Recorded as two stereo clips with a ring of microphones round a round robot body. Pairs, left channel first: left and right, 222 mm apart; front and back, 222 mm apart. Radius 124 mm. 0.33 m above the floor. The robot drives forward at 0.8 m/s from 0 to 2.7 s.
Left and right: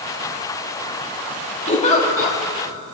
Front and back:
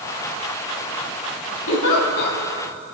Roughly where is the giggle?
Ahead left.